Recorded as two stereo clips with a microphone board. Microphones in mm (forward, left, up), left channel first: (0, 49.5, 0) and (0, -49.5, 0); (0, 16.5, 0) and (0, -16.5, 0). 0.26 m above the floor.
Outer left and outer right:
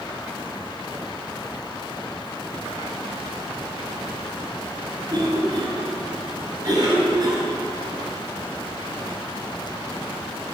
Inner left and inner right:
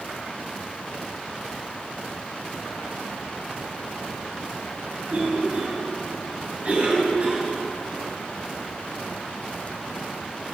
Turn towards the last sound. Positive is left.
turn(degrees=-45)  # may be behind; listen again after turning